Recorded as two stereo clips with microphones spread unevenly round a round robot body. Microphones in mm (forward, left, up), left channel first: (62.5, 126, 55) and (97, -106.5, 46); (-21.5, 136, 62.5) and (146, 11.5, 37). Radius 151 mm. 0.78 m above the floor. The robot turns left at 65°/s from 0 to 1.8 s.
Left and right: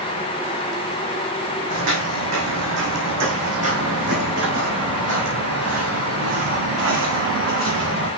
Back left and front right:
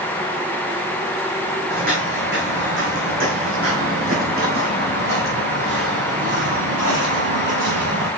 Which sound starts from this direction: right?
Footsteps, at 1.7 s.